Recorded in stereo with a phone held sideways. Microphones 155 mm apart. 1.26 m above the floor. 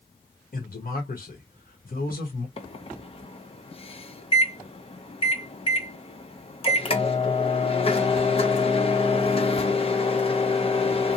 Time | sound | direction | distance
0.5 | a man speaking | 65° left (ahead or behind) | 1.3 m
2.6 | a microwave | 40° left (ahead or behind) | 0.6 m